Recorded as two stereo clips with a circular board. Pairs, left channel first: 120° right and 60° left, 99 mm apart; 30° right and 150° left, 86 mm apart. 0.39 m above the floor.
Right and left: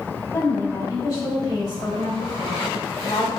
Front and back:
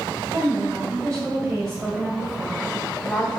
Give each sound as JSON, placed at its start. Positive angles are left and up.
{"t": 0.3, "sound": "a woman speaking", "azimuth_deg": 180, "distance_m": 2.5}